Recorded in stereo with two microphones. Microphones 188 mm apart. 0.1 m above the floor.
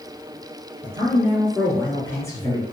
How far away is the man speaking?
About 1.2 m.